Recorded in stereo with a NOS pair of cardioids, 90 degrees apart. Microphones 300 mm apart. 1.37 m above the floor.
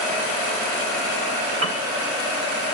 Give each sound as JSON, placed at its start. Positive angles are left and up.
{"t": 1.6, "sound": "a piano", "azimuth_deg": -45, "distance_m": 1.9}